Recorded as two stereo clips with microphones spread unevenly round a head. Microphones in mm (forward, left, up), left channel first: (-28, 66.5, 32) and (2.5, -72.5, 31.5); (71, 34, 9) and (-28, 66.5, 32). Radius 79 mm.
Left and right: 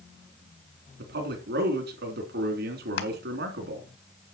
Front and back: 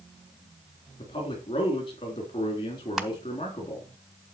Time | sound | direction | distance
1.0 | a man speaking | 75° right | 3.5 m
3.0 | crushing | 85° left | 1.7 m